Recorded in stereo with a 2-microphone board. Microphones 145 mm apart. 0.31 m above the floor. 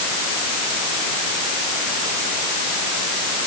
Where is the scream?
I don't hear a scream.